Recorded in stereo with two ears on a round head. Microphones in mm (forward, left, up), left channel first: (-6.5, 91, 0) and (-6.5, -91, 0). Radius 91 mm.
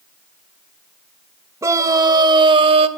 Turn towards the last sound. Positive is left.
turn(degrees=-30)  # may be behind; listen again after turning